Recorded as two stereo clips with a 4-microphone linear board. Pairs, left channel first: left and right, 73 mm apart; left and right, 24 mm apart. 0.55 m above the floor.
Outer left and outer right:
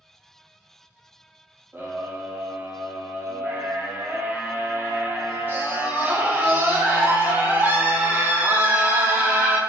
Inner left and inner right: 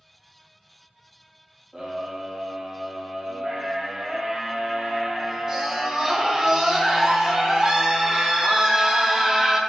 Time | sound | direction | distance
1.7 | a scream | 25° right (ahead or behind) | 0.7 m